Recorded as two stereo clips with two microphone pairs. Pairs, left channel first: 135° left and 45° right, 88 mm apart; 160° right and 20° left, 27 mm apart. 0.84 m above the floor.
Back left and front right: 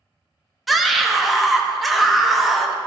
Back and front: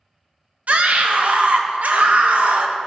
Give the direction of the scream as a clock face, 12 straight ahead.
10 o'clock.